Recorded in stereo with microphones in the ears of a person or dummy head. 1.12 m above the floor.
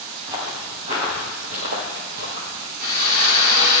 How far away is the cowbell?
No cowbell in this recording.